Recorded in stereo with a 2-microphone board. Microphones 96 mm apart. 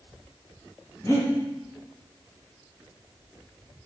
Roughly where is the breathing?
Left.